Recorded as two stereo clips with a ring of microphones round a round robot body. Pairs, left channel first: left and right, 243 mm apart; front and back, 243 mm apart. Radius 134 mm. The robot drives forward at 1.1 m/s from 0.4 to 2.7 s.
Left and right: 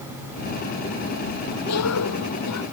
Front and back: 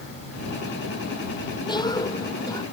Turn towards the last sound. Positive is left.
turn(degrees=75)